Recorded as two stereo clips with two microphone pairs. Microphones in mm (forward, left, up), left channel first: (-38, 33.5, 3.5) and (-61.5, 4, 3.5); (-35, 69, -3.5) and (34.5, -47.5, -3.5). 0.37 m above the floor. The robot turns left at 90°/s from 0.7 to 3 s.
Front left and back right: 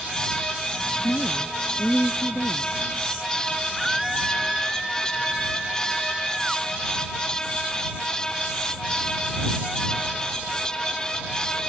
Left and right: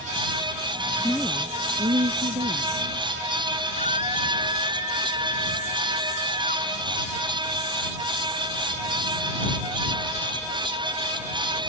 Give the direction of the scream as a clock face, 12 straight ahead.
7 o'clock.